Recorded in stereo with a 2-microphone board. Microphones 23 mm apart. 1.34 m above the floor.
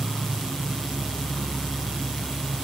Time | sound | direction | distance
0.0 | an insect | 5° left (ahead or behind) | 1.2 m